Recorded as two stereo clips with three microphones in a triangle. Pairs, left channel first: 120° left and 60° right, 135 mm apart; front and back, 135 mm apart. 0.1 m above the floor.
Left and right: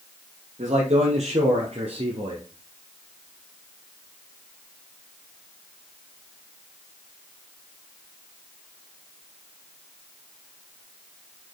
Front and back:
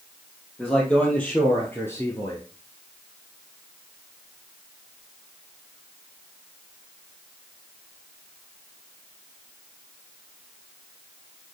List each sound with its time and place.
0.6 s a man speaking: 85° right, 3 m; by 2.4 s 50° right, 1.6 m